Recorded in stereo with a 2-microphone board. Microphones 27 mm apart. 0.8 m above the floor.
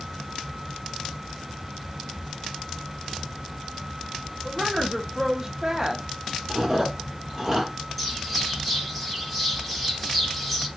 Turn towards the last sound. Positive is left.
turn(degrees=-5)  # may be behind; listen again after turning